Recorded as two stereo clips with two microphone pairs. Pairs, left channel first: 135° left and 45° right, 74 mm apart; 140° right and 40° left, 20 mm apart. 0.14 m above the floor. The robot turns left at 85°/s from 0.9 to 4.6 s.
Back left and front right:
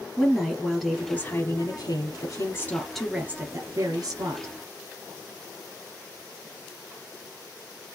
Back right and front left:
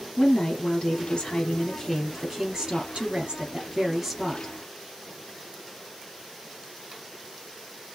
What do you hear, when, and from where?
0.2 s a woman speaking: 135° right, 2.5 m; by 4.5 s 85° right, 2.5 m